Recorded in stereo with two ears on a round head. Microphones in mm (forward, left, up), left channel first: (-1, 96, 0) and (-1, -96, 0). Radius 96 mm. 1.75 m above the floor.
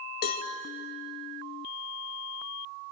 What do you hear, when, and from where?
0.2 s a cowbell: 45° left (ahead or behind), 1.6 m